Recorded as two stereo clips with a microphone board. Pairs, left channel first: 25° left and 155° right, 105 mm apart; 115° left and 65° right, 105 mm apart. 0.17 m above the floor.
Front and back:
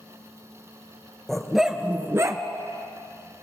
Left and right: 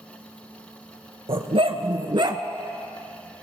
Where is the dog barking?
65° right, 0.9 m; by 2.4 s 110° right, 0.6 m.